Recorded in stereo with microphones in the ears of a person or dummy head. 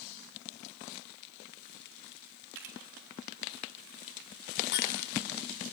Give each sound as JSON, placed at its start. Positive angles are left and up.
{"t": 2.5, "sound": "a camera shutter", "side_deg": -70, "distance_m": 3.0}
{"t": 4.7, "sound": "breaking glass", "side_deg": 60, "distance_m": 6.0}